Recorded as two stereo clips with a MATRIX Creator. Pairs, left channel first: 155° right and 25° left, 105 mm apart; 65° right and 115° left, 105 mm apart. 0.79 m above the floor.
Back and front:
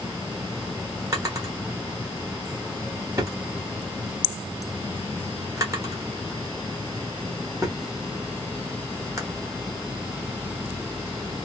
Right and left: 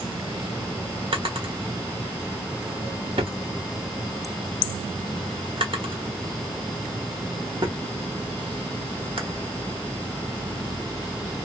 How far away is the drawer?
About 1.2 m.